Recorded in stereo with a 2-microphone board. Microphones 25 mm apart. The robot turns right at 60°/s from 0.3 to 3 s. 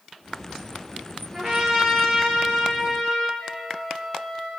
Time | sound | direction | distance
1.3 | a trumpet | 30° right | 3 m
3.4 | a flute | centre (ahead or behind) | 2 m